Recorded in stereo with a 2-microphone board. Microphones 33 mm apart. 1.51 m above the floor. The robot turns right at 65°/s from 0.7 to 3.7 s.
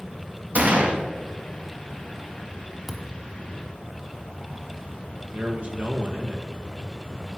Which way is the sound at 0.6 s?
50° right (ahead or behind).